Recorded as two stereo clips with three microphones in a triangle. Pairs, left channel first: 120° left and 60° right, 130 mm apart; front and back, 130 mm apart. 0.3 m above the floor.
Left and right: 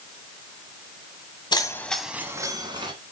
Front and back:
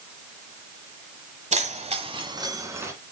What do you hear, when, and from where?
1.5 s keys jangling: 170° left, 1.3 m; by 2.9 s 110° right, 2 m